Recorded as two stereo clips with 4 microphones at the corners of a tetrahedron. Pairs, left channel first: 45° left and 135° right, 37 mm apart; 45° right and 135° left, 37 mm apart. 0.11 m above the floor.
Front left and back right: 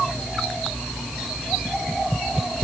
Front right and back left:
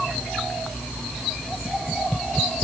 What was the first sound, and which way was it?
Only background noise.